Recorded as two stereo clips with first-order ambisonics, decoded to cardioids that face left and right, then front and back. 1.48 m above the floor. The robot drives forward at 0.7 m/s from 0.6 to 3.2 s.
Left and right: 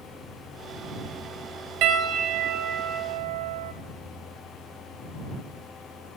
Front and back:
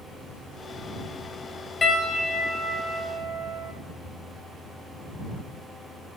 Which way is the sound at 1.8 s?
75° right.